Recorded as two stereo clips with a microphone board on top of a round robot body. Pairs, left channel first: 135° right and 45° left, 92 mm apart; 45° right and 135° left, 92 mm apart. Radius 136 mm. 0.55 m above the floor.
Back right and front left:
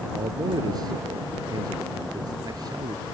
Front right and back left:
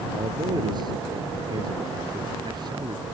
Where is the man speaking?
90° left.